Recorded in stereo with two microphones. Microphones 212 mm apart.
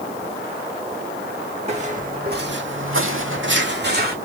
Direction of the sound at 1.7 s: 30° right (ahead or behind).